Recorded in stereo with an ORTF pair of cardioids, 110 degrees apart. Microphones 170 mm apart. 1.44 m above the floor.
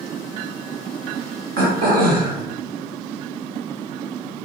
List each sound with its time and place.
1.6 s throat clearing: 70° right, 1.9 m